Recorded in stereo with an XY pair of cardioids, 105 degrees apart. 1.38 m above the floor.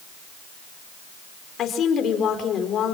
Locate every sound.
1.6 s a woman speaking: 60° left, 4.5 m